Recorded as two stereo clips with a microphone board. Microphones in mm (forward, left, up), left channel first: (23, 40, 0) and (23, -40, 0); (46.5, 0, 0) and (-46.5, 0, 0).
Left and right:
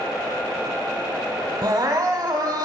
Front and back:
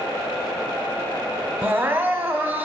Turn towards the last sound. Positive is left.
turn(degrees=-115)